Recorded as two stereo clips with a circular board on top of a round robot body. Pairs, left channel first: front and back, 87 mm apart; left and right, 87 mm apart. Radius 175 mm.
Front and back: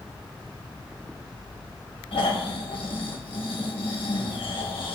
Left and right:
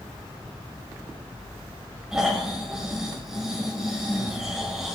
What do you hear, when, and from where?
2.1 s snoring: 5° right, 2 m